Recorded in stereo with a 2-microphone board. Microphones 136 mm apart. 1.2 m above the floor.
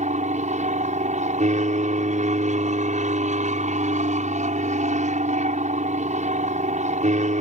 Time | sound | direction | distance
0.0 | an aircraft | 60° right (ahead or behind) | ?